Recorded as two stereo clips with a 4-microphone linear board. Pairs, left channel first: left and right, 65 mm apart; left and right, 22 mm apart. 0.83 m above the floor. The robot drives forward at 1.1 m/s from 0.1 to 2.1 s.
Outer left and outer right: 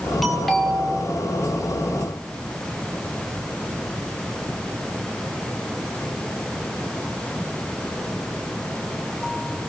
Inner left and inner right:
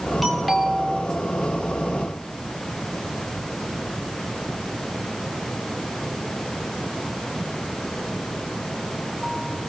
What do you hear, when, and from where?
0.2 s a doorbell: centre (ahead or behind), 3 m